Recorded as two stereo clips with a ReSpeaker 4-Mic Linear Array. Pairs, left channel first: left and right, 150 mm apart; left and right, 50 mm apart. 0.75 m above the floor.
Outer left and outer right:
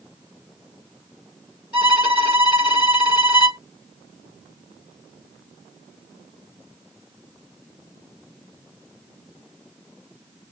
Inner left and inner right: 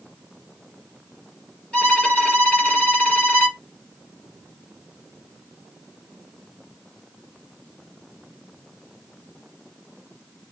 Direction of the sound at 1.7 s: 30° left (ahead or behind).